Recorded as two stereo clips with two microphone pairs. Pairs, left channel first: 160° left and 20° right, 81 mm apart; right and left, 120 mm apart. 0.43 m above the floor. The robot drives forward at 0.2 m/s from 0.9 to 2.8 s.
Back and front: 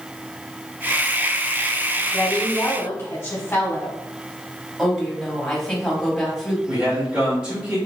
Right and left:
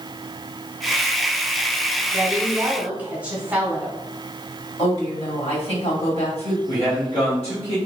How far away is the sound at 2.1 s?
About 1.4 m.